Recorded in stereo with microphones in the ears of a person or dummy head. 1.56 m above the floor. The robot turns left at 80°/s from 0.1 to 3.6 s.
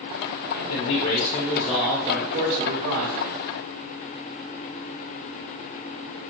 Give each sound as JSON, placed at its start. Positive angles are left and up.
{"t": 0.6, "sound": "a man speaking", "azimuth_deg": 100, "distance_m": 0.8}